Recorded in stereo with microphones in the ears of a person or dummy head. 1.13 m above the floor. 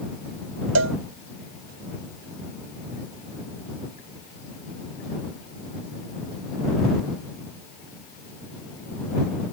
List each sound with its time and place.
0.8 s a cowbell: 70° right (ahead or behind)